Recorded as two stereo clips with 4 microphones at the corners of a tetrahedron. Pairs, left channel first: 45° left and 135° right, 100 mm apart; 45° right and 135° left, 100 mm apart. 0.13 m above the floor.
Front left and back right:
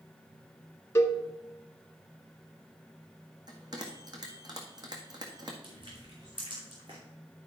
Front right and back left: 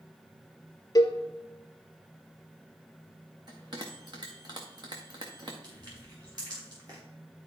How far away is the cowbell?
About 0.8 m.